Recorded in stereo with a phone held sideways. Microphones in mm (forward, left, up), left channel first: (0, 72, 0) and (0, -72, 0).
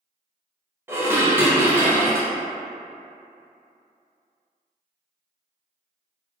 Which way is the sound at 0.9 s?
15° right (ahead or behind).